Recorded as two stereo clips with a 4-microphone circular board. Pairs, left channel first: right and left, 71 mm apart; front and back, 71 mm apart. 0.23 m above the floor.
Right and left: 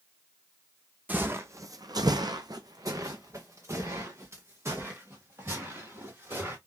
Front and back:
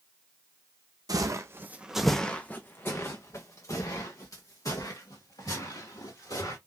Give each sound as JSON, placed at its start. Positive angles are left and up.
{"t": 1.1, "sound": "footsteps", "azimuth_deg": 155, "distance_m": 0.6}